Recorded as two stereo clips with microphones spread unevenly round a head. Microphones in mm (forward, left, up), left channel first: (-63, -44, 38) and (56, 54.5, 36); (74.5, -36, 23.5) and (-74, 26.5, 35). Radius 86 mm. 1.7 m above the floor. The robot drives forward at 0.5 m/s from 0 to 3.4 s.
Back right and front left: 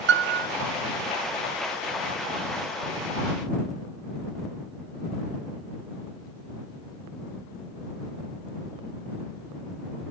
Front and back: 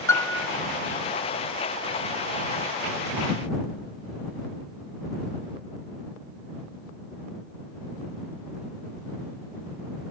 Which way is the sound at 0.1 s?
50° left.